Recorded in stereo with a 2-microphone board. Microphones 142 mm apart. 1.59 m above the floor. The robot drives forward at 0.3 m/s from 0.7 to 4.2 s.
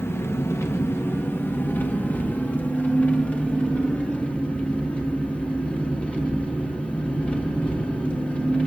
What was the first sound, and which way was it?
An engine running, 20° left (ahead or behind).